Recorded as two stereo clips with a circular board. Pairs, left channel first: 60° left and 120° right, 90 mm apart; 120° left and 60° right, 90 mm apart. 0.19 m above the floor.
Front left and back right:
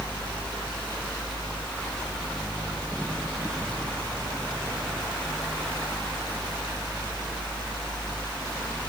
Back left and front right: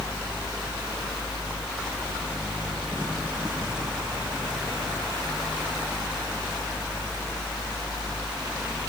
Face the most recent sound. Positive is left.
No sound to turn to.